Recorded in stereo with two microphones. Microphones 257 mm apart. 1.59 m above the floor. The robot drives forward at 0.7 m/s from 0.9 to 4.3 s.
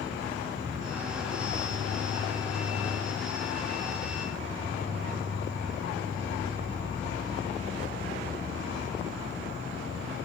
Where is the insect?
70° left (ahead or behind), 2.5 m; by 10.3 s 55° left (ahead or behind), 3 m.